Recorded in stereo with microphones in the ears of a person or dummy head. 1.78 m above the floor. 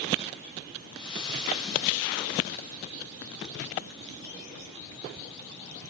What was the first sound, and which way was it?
Frying, 30° left (ahead or behind).